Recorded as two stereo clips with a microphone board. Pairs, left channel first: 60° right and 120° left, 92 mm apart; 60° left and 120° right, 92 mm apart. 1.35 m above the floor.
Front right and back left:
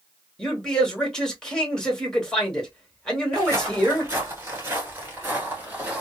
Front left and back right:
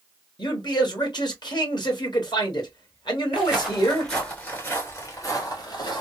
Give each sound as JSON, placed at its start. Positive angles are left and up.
{"t": 0.4, "sound": "a man speaking", "azimuth_deg": 25, "distance_m": 1.4}
{"t": 3.3, "sound": "footsteps", "azimuth_deg": 165, "distance_m": 1.7}